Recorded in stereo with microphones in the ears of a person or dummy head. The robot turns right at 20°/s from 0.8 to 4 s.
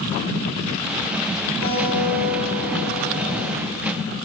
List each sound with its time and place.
1.6 s a guitar: 140° right, 2 m; by 3.5 s 100° right, 2 m